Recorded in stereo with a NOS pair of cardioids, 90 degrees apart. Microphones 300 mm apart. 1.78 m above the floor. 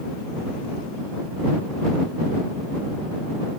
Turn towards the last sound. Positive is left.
No sound to turn to.